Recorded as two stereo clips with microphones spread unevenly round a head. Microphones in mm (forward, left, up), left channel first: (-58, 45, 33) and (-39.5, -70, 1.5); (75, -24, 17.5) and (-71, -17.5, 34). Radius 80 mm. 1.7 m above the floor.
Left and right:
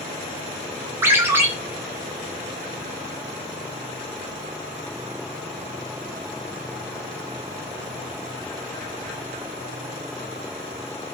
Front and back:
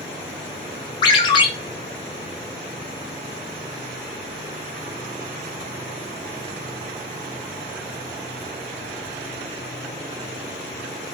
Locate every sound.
1.0 s a ringtone: 5° left, 0.5 m